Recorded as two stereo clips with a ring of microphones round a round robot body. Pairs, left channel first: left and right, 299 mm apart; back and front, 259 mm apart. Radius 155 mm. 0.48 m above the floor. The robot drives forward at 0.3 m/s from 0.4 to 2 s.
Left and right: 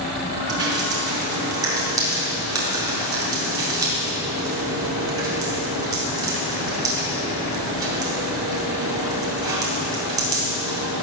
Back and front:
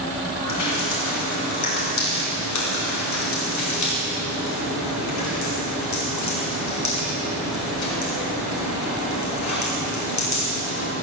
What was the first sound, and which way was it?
Dripping, 165° right.